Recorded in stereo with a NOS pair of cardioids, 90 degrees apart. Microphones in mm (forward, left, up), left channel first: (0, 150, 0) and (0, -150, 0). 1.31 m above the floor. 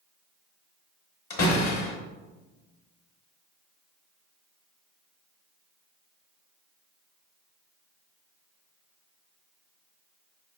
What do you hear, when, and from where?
1.3 s a door slam: 60° left, 2 m